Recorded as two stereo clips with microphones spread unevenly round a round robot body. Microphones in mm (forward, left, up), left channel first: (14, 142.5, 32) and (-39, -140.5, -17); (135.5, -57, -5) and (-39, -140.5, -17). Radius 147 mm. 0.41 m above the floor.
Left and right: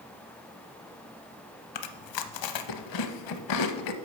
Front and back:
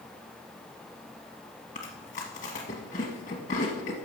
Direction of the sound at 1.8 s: 90° left.